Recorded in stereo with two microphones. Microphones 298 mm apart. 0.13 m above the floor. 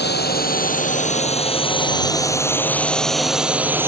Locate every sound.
0.0 s a drone: 35° left (ahead or behind); by 3.9 s 10° right (ahead or behind)